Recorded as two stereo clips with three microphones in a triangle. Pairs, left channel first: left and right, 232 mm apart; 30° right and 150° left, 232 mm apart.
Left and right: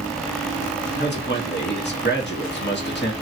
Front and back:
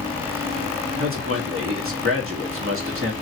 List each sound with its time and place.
1.0 s a man speaking: 130° left, 1.1 m